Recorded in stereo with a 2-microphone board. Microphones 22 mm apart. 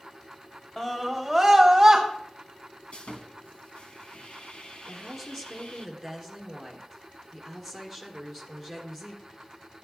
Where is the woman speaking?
Centre (ahead or behind), 3 m.